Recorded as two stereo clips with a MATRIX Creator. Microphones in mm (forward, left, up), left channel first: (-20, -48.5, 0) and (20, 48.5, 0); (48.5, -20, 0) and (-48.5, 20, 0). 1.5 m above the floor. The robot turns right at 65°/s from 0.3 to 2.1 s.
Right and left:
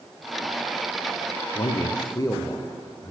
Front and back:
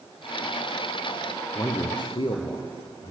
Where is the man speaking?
95° right, 0.5 m; by 3.1 s 55° right, 0.5 m.